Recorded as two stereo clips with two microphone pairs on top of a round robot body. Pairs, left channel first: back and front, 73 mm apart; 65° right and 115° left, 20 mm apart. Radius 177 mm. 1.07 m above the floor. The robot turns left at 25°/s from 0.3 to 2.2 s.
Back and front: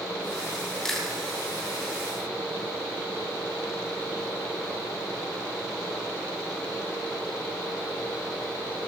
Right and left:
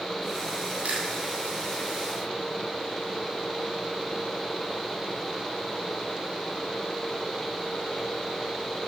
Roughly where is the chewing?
Left.